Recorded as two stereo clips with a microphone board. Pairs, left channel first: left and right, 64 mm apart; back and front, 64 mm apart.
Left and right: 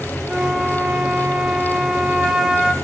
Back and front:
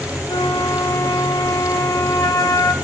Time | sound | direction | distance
0.3 | a flute | 165° right | 2.5 m